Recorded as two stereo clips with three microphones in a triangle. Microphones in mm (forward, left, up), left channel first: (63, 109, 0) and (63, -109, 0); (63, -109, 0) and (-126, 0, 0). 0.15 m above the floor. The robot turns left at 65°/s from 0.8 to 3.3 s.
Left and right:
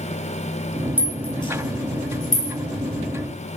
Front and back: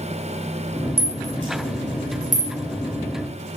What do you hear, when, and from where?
1.0 s a rattle: 170° right, 3.5 m; by 2.5 s 90° left, 3.5 m